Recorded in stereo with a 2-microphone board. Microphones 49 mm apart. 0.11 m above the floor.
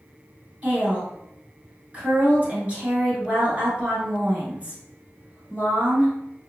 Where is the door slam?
I don't hear a door slam.